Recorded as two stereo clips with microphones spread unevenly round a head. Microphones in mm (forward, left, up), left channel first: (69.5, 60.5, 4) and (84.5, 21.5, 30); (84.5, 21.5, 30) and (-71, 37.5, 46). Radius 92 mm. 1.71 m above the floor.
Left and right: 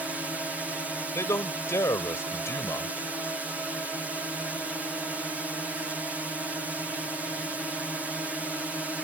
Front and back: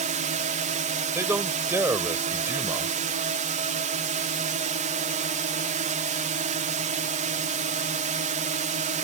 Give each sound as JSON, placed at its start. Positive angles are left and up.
{"t": 0.0, "sound": "a drone", "azimuth_deg": -155}
{"t": 1.1, "sound": "a man speaking", "azimuth_deg": 100}